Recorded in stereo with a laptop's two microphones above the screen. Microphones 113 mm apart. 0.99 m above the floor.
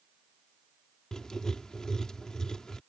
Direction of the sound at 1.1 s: 5° left (ahead or behind).